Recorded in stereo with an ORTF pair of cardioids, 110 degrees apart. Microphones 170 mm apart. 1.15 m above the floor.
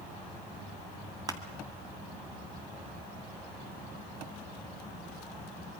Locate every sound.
1.3 s crushing: 20° right, 2 m